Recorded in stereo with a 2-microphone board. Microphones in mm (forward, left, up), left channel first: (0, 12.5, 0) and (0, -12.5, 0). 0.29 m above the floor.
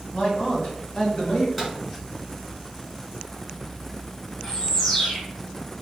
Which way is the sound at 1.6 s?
5° left (ahead or behind).